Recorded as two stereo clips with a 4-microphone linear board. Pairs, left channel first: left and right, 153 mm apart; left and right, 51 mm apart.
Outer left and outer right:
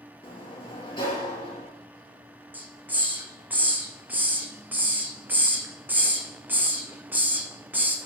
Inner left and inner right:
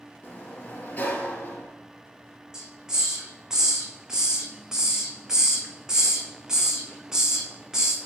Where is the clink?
No clink in this recording.